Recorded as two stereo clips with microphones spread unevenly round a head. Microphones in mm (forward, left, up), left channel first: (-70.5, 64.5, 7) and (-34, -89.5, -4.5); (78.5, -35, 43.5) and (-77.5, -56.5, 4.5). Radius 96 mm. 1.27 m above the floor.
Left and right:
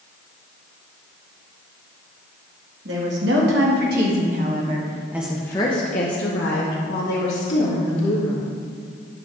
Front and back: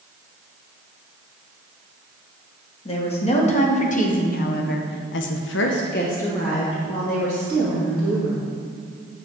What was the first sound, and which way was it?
A woman speaking, 45° right.